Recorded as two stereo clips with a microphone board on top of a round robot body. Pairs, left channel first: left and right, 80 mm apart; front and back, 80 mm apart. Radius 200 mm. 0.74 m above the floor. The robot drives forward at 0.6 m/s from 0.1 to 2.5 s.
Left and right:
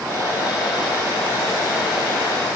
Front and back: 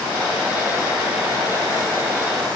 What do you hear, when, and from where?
Only background noise.